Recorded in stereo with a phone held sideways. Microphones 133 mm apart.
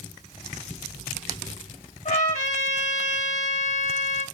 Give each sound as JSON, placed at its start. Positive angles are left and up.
{"t": 2.0, "sound": "a trumpet", "side_deg": 70, "distance_m": 1.9}